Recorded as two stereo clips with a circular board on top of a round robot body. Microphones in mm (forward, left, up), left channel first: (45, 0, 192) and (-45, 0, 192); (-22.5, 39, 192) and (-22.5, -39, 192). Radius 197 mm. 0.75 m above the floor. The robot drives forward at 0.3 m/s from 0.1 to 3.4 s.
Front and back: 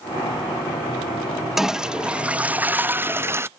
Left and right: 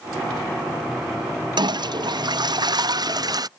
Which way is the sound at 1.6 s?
95° right.